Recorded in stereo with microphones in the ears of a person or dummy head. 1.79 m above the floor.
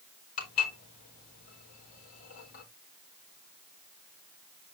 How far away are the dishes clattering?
About 4.5 m.